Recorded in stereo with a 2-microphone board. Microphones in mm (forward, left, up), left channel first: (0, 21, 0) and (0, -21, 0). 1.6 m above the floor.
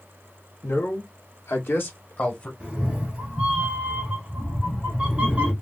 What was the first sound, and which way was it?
A man speaking, 70° left (ahead or behind).